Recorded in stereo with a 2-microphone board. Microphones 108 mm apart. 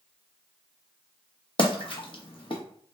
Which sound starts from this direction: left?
A splash, at 1.6 s.